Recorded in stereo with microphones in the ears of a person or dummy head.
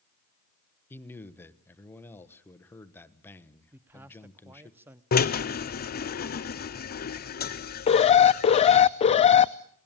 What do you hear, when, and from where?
0.9 s a man speaking: 10° left (ahead or behind), 1.2 m
3.7 s a man speaking: 10° right (ahead or behind), 0.8 m
5.1 s a drill: 45° left (ahead or behind), 0.7 m
7.9 s an alarm: 30° left (ahead or behind), 0.5 m